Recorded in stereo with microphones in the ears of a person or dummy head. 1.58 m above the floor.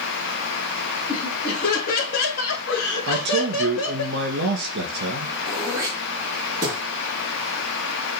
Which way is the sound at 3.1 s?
60° right (ahead or behind).